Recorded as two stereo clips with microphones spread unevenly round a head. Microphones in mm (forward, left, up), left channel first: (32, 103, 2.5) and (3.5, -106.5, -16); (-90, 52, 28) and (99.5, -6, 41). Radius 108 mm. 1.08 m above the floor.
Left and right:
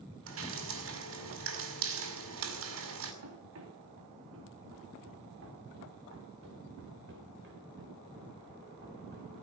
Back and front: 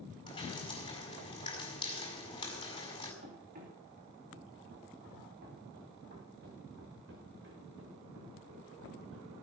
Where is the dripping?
130° right, 5.5 m.